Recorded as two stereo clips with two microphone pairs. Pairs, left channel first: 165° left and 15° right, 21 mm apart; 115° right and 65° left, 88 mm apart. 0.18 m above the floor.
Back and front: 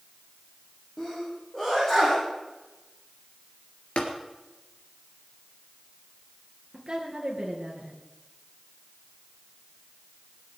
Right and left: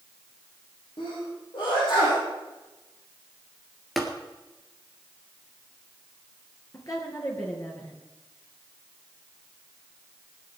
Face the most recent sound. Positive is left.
turn(degrees=-65)